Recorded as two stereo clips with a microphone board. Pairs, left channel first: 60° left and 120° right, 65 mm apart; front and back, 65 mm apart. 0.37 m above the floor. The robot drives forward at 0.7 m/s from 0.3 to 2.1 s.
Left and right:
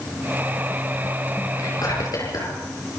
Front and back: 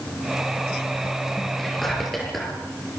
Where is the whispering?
85° left, 7 m.